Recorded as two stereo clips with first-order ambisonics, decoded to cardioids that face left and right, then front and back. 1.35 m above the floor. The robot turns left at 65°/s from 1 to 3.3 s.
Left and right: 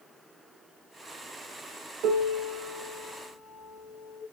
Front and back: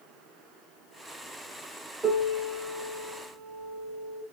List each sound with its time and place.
2.0 s a piano: 95° right, 0.9 m; by 4.2 s straight behind, 0.9 m